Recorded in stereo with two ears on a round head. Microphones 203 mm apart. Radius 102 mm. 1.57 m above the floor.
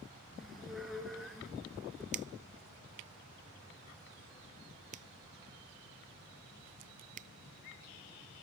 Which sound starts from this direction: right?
A finger snap, at 2.1 s.